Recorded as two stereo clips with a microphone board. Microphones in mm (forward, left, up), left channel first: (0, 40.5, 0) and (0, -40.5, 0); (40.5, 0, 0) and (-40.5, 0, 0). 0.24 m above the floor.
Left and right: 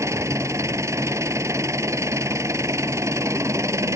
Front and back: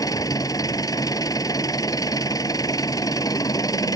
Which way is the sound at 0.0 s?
40° right.